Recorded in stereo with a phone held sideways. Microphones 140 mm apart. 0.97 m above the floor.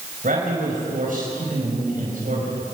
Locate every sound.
0.2 s a man speaking: 80° right, 5 m